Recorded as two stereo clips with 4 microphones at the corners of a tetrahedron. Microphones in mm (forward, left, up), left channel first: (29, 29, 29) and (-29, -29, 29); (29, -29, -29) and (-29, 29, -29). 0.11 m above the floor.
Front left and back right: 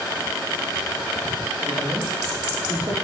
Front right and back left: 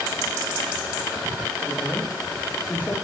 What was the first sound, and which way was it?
A man speaking, 120° right.